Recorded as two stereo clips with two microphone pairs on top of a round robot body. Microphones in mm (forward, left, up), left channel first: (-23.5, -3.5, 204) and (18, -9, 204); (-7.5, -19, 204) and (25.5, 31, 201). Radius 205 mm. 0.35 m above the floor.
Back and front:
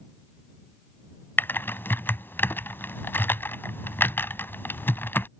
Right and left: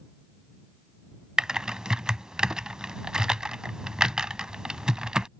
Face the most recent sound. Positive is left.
turn(degrees=135)